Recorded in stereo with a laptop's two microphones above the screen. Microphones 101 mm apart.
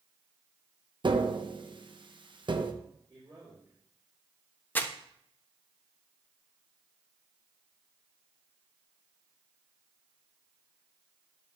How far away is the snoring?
I don't hear snoring.